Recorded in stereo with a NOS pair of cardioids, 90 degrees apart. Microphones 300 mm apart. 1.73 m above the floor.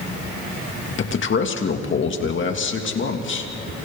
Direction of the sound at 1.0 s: 40° left.